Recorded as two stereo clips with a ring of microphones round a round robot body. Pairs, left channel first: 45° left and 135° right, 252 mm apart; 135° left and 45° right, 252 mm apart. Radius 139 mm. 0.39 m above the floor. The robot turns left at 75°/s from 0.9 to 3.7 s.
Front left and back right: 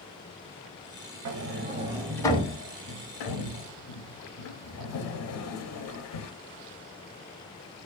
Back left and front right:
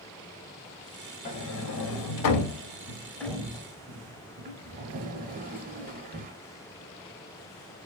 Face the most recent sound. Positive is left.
turn(degrees=15)